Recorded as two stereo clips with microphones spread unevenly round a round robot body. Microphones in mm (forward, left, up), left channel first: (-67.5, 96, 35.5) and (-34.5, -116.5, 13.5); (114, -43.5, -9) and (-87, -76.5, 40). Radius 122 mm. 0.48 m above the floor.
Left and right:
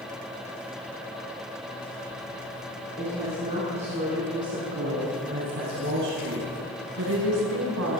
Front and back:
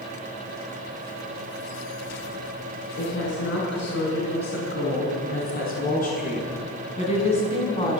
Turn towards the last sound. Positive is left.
turn(degrees=-55)